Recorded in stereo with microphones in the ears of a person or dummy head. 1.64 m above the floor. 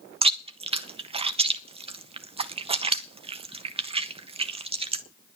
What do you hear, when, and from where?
0.2 s chewing: 30° right (ahead or behind), 0.6 m